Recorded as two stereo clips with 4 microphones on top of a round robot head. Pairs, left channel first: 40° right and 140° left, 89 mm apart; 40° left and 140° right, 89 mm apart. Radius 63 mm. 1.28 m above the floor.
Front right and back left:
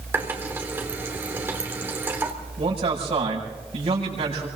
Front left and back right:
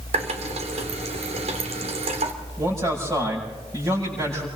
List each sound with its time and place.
0.1 s a running tap: 150° right, 3 m
2.6 s a man speaking: 165° left, 7 m